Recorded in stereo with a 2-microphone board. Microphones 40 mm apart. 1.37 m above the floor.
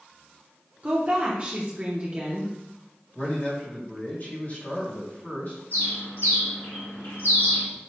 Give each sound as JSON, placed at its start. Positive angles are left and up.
{"t": 0.8, "sound": "a woman speaking", "side_deg": -30, "distance_m": 0.8}
{"t": 3.1, "sound": "a man speaking", "side_deg": 45, "distance_m": 1.8}
{"t": 5.7, "sound": "a bird", "side_deg": 65, "distance_m": 1.6}